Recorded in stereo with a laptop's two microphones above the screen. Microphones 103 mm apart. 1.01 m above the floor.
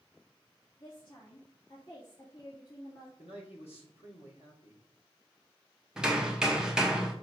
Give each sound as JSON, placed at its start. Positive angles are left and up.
{"t": 0.8, "sound": "a woman speaking", "side_deg": 50, "distance_m": 2.0}
{"t": 3.2, "sound": "a man speaking", "side_deg": 80, "distance_m": 2.5}
{"t": 6.0, "sound": "hammering", "side_deg": -5, "distance_m": 0.9}